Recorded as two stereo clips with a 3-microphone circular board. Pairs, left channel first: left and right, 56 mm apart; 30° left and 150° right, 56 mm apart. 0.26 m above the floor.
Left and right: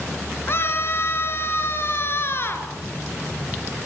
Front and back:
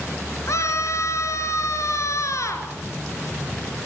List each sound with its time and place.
0.5 s a scream: 50° left, 4.5 m